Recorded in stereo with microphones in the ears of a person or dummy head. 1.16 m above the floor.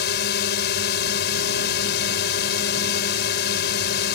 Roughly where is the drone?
Left.